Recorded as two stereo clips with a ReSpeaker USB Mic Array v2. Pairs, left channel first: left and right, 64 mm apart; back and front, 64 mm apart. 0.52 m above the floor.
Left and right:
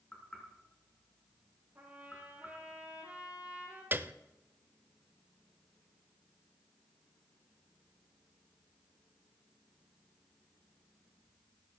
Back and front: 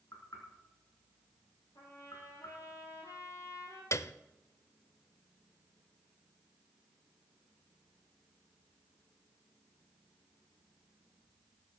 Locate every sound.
0.1 s knocking: 165° left, 5 m
1.8 s a trumpet: 160° right, 6 m
3.9 s a piano: 145° right, 0.6 m